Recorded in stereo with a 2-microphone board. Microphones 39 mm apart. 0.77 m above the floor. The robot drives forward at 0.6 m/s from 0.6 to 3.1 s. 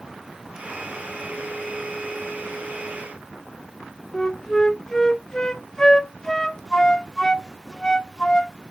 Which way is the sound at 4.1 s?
15° left (ahead or behind).